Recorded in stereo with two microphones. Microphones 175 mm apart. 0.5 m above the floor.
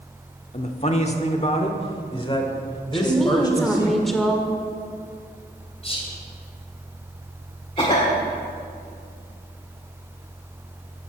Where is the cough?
30° left (ahead or behind), 1.5 m.